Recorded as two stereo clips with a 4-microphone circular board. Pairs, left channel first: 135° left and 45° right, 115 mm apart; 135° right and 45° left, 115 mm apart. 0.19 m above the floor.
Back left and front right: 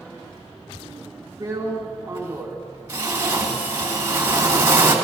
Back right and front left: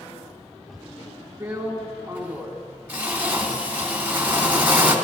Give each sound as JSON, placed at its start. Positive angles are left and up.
{"t": 1.4, "sound": "a drill", "azimuth_deg": -5, "distance_m": 1.6}